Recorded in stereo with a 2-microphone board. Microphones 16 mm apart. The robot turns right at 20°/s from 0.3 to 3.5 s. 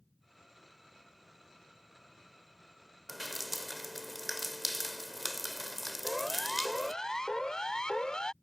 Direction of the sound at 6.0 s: 30° left (ahead or behind).